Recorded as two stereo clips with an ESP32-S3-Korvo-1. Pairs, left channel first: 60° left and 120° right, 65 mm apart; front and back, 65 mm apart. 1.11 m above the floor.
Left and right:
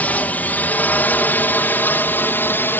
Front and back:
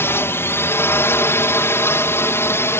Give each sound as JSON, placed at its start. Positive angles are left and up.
{"t": 0.0, "sound": "a drone", "azimuth_deg": 10}